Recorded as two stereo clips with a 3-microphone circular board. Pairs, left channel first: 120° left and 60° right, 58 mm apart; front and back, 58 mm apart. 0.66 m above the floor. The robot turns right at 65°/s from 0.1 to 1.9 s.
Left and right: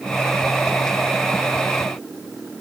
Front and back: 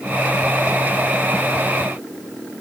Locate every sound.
Only background noise.